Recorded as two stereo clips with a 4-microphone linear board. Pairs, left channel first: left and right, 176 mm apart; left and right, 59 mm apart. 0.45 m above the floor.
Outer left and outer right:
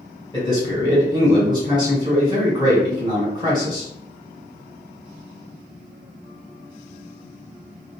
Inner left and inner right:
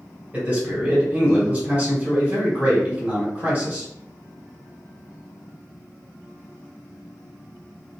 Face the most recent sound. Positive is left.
turn(degrees=-25)  # may be behind; listen again after turning